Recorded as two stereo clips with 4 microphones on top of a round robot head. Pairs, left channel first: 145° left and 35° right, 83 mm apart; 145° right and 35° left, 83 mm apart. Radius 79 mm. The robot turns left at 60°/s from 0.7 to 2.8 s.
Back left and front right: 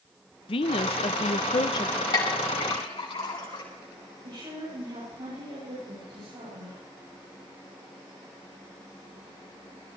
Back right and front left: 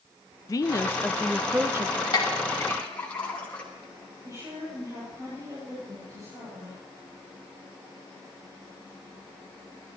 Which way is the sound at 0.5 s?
165° left.